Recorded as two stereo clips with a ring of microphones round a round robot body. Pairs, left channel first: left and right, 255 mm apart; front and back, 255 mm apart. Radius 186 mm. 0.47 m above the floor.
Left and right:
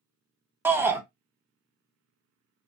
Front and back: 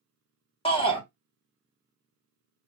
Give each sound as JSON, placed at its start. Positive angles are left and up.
{"t": 0.7, "sound": "a shout", "azimuth_deg": -20, "distance_m": 0.7}